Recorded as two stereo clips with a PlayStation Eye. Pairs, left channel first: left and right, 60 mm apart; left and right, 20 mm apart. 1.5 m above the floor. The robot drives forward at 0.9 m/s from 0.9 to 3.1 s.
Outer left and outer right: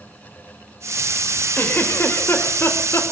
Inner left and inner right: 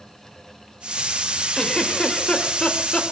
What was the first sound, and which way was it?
A giggle, 35° left (ahead or behind).